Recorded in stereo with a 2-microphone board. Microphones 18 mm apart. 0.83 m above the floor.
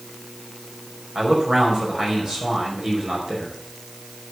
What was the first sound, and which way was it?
A man speaking, 45° right (ahead or behind).